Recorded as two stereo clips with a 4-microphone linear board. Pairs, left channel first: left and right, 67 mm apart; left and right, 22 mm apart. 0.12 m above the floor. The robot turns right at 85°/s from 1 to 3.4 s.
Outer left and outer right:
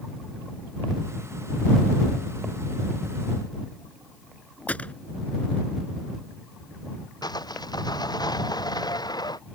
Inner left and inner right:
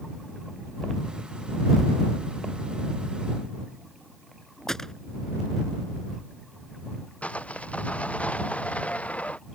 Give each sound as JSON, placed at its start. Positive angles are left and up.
{"t": 4.7, "sound": "a gunshot", "side_deg": 20}
{"t": 7.2, "sound": "sawing", "side_deg": 80}